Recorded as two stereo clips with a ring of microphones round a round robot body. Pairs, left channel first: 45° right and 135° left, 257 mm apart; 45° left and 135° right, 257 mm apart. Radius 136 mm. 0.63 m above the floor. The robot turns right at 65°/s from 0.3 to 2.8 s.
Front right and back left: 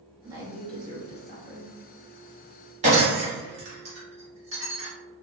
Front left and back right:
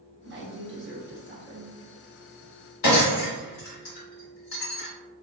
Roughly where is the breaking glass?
Left.